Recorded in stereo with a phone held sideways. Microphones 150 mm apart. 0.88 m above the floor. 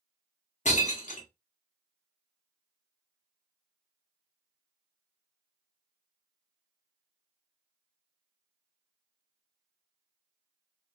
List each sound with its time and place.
0.7 s breaking glass: 55° left (ahead or behind), 0.6 m